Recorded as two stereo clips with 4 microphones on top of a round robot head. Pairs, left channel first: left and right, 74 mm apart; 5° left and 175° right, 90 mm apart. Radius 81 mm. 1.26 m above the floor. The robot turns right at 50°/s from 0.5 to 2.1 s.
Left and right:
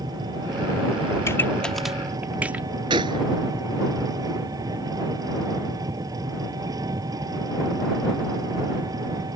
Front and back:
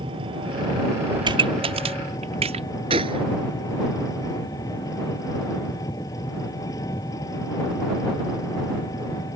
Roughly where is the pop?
Behind left.